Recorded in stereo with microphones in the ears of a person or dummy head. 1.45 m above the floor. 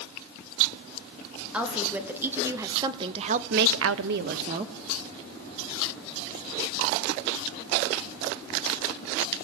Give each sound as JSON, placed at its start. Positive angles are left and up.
{"t": 1.5, "sound": "a woman speaking", "side_deg": -5, "distance_m": 3.5}